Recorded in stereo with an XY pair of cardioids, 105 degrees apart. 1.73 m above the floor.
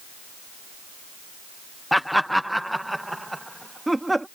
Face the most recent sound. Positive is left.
turn(degrees=-10)